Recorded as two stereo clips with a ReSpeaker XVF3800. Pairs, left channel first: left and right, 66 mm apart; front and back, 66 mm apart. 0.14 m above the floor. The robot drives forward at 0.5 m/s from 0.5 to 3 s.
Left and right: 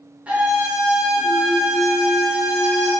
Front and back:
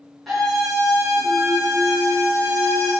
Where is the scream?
90° right, 1.3 m; by 2.9 s 155° right, 1.8 m.